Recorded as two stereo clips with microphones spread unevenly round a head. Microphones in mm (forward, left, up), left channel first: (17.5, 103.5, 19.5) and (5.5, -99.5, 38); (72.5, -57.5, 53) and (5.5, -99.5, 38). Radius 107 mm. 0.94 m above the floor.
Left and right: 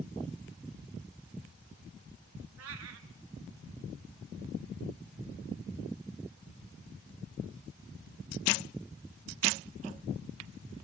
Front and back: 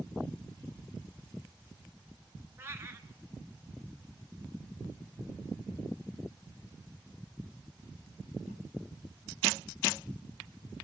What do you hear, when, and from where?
2.6 s a cat meowing: 85° right, 1.9 m